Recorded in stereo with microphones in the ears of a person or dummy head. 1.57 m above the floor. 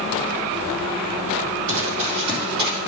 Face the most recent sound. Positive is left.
turn(degrees=-25)  # may be behind; listen again after turning